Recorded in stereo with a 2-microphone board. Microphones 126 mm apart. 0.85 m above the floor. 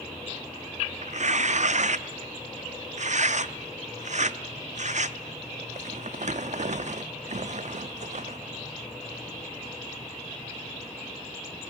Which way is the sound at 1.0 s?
65° right (ahead or behind).